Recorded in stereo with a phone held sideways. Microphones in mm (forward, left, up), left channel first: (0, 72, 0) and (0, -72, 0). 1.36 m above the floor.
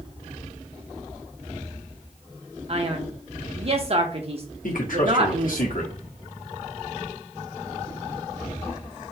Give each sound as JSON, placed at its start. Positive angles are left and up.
{"t": 2.7, "sound": "a man speaking", "side_deg": -45, "distance_m": 1.1}
{"t": 4.6, "sound": "a man speaking", "side_deg": 75, "distance_m": 1.5}